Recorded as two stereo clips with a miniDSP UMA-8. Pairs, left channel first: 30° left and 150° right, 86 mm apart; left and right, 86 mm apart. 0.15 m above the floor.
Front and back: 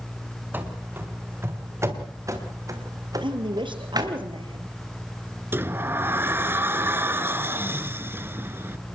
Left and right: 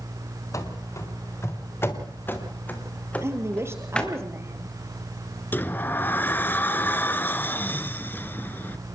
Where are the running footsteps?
140° left, 4 m; by 4.2 s 170° left, 3.5 m.